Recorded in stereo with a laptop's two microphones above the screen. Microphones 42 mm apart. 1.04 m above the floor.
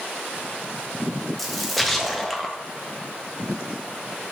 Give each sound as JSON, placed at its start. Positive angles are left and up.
{"t": 1.4, "sound": "a splash", "side_deg": 0, "distance_m": 0.6}